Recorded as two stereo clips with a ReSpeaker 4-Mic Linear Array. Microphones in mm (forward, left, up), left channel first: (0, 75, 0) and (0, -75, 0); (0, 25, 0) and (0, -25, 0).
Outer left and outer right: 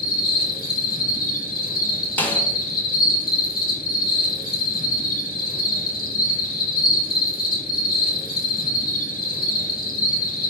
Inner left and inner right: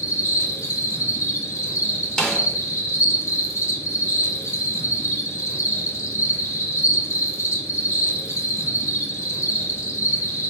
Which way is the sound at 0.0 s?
80° left.